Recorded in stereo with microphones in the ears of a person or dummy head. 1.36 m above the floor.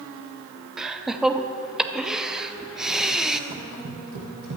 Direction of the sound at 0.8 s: Centre (ahead or behind).